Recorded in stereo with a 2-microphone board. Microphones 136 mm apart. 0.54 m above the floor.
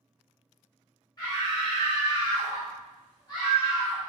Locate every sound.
1.2 s a scream: 30° left (ahead or behind), 0.7 m